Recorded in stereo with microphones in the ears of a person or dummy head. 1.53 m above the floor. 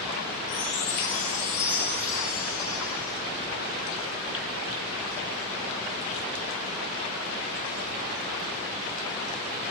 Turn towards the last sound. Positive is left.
turn(degrees=20)  # may be behind; listen again after turning